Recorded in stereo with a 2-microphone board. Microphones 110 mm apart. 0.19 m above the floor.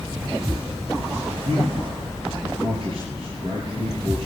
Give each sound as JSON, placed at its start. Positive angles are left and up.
{"t": 1.4, "sound": "a man speaking", "side_deg": -55, "distance_m": 4.0}